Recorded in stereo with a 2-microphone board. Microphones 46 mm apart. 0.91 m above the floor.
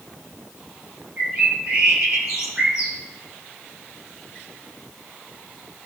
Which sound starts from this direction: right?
A bird, at 1.2 s.